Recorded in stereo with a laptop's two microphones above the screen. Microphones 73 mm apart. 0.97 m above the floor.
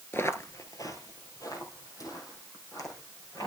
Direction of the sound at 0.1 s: 30° left (ahead or behind).